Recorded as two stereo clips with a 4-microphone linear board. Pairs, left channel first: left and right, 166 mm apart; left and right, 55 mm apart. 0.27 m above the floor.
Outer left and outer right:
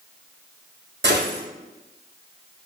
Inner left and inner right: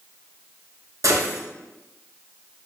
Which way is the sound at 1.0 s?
90° right.